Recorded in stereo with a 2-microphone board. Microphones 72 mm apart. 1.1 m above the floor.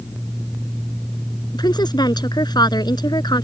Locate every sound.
1.5 s a woman speaking: 75° left (ahead or behind)